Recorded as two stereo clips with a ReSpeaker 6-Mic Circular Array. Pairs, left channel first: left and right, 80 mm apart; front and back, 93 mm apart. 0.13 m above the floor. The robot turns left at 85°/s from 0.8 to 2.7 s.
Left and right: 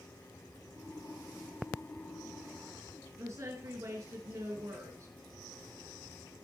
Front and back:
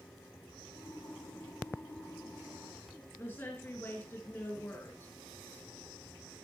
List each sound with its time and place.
3.2 s a woman speaking: 55° right, 2.5 m